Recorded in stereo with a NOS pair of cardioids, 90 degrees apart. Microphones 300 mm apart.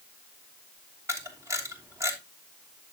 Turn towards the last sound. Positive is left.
turn(degrees=-10)